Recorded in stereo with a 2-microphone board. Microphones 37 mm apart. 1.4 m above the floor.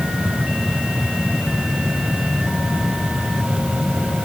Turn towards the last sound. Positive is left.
No sound to turn to.